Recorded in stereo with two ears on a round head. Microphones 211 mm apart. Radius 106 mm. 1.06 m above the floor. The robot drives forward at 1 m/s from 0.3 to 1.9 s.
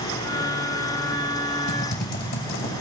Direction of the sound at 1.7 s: 45° left (ahead or behind).